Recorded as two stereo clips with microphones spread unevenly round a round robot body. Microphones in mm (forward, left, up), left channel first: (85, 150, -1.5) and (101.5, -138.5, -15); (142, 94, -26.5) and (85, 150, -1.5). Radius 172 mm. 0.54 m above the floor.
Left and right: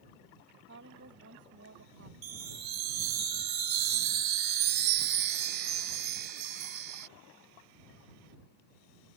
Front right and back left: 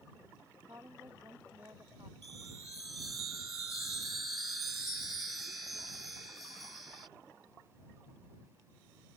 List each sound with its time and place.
0.7 s a woman speaking: 150° right
2.2 s a chime: 155° right